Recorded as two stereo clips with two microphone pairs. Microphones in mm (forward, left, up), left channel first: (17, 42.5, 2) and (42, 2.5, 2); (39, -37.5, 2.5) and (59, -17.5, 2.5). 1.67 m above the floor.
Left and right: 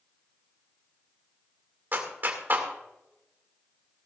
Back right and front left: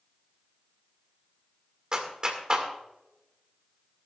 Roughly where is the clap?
Ahead.